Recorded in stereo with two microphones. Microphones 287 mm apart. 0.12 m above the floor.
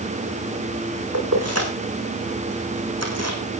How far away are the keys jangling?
About 5.5 m.